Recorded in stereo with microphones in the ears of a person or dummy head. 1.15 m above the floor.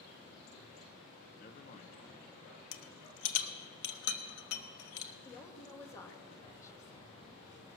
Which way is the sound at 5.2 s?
15° left (ahead or behind).